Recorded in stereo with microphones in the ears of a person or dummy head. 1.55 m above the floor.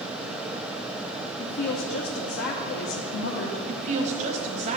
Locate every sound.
1.4 s a woman speaking: 55° left (ahead or behind), 1.1 m
3.7 s a woman speaking: 35° right (ahead or behind), 1.3 m